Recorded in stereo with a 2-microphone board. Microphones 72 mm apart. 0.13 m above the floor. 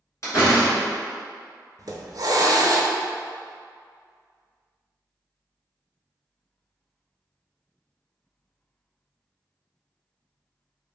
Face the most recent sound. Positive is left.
turn(degrees=-60)  # may be behind; listen again after turning